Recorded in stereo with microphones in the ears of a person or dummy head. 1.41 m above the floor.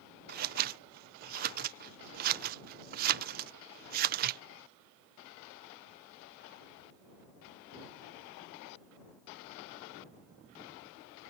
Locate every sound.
0.3 s scissors: 45° right (ahead or behind)